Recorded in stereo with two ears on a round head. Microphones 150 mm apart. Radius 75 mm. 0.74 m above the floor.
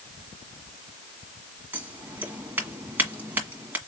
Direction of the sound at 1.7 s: 10° right (ahead or behind).